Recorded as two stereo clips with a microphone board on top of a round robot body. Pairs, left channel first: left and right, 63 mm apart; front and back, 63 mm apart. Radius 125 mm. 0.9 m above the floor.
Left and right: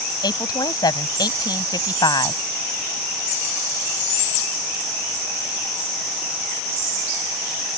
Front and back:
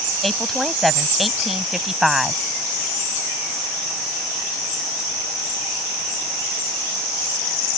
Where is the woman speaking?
85° left; by 2.4 s 95° left.